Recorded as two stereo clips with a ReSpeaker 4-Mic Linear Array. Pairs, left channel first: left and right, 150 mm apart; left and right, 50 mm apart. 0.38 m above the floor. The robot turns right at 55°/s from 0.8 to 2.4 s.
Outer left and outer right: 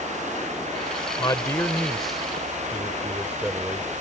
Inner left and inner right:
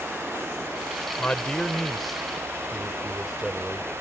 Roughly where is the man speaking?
Behind left.